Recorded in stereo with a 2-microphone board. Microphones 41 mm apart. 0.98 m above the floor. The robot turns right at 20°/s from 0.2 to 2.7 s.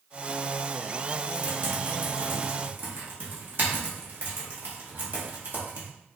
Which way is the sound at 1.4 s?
50° right (ahead or behind).